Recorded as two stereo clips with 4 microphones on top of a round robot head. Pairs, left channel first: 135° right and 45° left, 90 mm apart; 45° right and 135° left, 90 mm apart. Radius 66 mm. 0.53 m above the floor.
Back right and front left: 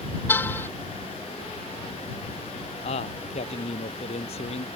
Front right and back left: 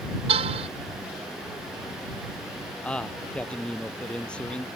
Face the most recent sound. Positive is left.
turn(degrees=-125)